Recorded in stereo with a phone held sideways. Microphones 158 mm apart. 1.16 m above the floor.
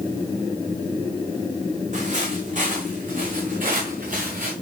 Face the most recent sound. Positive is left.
turn(degrees=-60)  # may be behind; listen again after turning